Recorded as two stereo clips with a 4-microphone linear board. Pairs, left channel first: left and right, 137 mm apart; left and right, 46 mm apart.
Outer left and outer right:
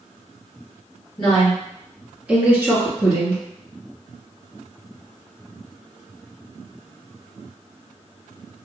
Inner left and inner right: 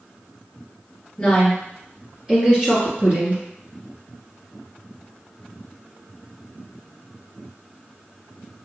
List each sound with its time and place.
1.2 s a woman speaking: 10° left (ahead or behind), 2.0 m; by 3.4 s 35° right (ahead or behind), 1.8 m